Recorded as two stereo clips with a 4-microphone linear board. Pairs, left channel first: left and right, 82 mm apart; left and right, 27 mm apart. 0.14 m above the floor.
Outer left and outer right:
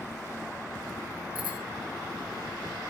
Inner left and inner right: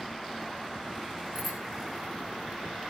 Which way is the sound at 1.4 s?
20° right (ahead or behind).